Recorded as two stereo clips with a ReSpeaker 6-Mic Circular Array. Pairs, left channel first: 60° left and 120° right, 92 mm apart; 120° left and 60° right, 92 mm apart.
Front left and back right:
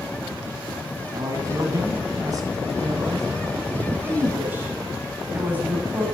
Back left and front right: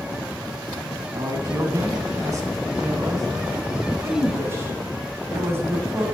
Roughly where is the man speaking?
Right.